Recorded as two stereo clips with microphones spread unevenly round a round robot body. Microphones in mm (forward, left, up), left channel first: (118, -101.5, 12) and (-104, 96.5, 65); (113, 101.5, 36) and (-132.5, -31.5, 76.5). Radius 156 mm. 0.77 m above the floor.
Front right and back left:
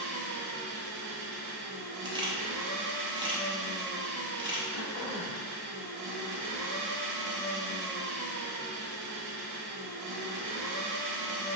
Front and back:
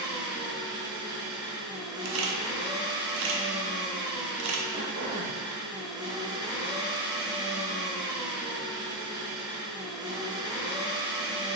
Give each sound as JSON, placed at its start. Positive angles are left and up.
{"t": 0.0, "sound": "an engine running", "azimuth_deg": 135, "distance_m": 1.2}
{"t": 2.0, "sound": "a camera shutter", "azimuth_deg": -140, "distance_m": 0.7}
{"t": 4.7, "sound": "throat clearing", "azimuth_deg": -85, "distance_m": 0.6}